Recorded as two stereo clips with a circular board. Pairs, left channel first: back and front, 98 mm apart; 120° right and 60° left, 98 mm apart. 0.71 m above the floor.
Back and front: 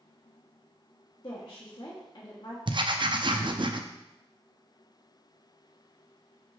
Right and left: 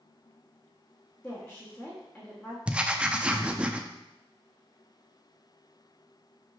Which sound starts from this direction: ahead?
Writing, at 2.7 s.